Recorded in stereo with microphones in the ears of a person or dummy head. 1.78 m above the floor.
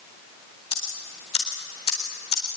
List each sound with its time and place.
0.7 s ticking: 30° left (ahead or behind), 4 m